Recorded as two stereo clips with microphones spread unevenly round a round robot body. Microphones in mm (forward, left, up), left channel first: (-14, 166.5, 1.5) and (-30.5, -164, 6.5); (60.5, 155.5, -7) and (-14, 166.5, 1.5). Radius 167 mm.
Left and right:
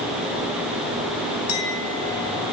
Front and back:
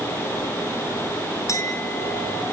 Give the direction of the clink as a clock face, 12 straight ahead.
11 o'clock.